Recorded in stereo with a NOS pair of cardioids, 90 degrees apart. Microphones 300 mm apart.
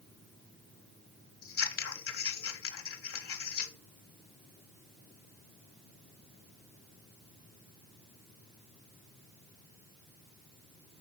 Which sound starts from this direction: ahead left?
Scissors, at 1.4 s.